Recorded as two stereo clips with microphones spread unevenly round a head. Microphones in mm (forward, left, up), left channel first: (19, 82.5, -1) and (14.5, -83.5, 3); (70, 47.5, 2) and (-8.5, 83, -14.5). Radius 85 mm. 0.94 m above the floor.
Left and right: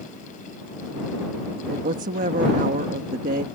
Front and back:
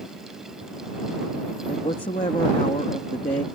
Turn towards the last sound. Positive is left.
turn(degrees=-60)